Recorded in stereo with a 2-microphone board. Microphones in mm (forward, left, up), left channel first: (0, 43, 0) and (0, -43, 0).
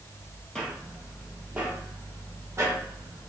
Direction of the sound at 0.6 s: 5° left (ahead or behind).